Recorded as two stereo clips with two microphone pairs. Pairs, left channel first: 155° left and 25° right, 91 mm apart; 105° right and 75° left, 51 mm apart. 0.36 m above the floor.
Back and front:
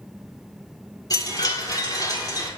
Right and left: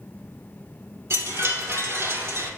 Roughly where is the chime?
Left.